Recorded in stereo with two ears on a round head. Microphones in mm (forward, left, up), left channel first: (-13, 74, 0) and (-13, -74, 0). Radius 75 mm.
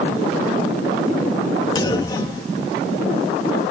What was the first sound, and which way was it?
A clunk, 25° left (ahead or behind).